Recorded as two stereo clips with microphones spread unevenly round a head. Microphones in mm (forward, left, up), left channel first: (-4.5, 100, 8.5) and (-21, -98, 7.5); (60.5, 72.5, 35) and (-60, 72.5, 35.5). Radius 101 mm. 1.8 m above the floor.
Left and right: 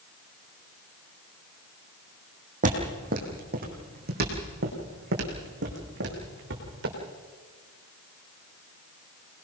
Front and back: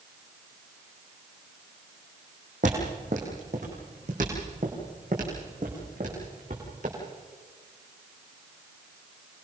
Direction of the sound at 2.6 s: 140° right.